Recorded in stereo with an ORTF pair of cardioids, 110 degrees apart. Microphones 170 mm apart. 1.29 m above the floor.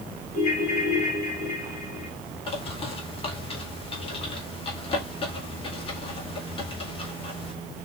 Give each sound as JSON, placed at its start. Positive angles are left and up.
{"t": 0.3, "sound": "a ringtone", "azimuth_deg": 50, "distance_m": 3.0}
{"t": 2.5, "sound": "a bird", "azimuth_deg": 35, "distance_m": 2.0}